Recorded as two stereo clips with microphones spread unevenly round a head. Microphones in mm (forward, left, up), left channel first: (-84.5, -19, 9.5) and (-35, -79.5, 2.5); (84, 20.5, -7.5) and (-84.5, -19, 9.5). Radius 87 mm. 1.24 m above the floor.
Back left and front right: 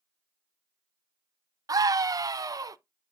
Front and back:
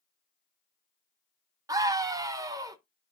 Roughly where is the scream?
Right.